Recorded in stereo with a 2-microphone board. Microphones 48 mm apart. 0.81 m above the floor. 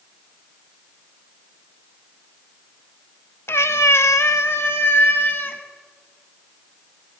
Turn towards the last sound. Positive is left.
turn(degrees=45)  # may be behind; listen again after turning